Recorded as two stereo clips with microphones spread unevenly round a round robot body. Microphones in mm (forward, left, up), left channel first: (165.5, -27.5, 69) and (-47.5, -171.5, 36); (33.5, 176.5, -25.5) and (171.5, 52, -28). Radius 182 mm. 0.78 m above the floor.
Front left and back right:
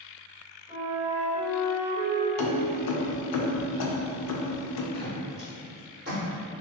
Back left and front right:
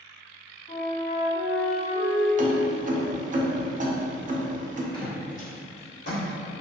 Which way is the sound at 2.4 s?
10° left.